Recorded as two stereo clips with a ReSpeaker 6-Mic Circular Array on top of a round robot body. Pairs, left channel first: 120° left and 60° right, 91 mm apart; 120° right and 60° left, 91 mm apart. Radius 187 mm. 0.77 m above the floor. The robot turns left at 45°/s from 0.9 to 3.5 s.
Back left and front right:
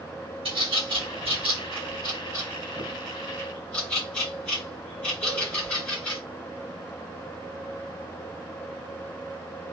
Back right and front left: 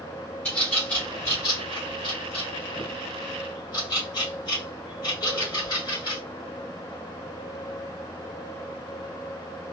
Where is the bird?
45° right, 3 m; by 6.2 s 165° right, 3 m.